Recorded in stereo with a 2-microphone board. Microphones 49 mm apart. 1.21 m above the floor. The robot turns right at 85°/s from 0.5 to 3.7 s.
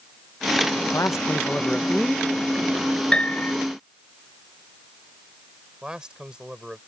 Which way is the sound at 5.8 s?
15° right (ahead or behind).